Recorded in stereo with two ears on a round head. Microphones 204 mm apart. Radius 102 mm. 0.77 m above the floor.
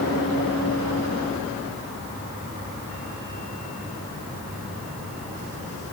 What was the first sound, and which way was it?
Only background noise.